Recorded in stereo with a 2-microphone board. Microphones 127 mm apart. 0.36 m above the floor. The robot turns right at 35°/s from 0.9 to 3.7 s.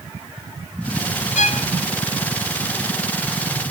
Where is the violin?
85° left, 0.9 m; by 1.7 s 75° left (ahead or behind), 0.9 m.